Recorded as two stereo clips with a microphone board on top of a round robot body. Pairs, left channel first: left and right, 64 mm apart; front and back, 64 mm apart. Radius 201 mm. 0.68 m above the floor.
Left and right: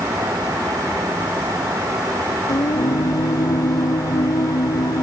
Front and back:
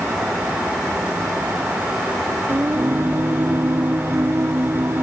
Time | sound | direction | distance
2.5 | singing | 125° left | ?